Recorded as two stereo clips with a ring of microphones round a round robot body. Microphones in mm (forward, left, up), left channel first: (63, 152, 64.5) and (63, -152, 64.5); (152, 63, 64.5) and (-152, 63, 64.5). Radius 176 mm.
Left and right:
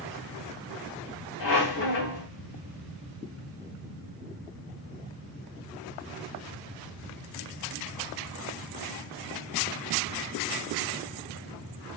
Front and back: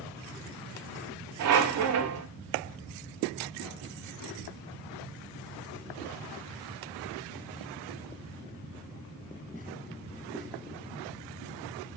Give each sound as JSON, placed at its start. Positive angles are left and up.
{"t": 1.4, "sound": "a squeak", "azimuth_deg": 145, "distance_m": 0.7}